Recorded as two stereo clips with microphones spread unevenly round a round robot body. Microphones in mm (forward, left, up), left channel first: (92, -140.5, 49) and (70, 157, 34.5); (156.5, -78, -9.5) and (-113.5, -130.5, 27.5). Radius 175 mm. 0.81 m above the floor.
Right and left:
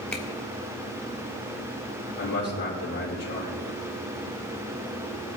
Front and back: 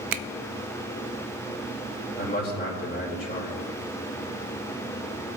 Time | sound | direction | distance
0.1 | a finger snap | 175° right | 0.5 m
2.2 | a man speaking | 45° right | 3.5 m